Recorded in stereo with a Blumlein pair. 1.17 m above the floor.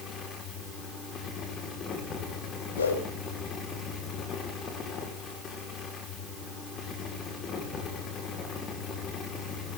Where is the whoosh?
65° left, 7.5 m.